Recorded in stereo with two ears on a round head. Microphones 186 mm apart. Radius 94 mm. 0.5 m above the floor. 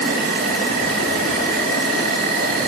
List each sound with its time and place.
0.0 s an insect: 50° right (ahead or behind), 1.7 m